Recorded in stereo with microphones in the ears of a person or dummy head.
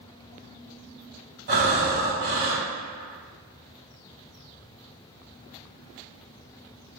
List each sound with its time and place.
1.5 s breathing: 60° right (ahead or behind), 1.7 m